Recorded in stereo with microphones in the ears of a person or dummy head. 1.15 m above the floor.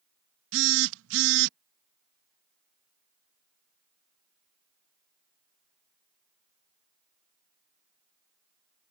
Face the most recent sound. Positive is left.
turn(degrees=-75)  # may be behind; listen again after turning